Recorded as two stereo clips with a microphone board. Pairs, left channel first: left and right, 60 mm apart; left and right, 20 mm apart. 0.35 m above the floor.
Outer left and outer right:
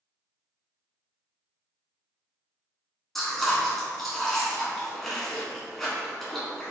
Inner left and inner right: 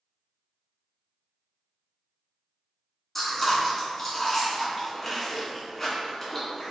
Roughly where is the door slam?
I don't hear a door slam.